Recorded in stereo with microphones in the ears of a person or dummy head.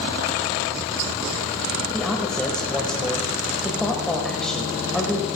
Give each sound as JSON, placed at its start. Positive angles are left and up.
{"t": 1.9, "sound": "a man speaking", "side_deg": 5, "distance_m": 1.7}